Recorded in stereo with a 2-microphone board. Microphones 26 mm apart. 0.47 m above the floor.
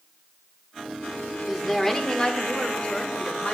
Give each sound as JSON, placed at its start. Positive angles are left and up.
{"t": 1.5, "sound": "a woman speaking", "side_deg": 5, "distance_m": 1.0}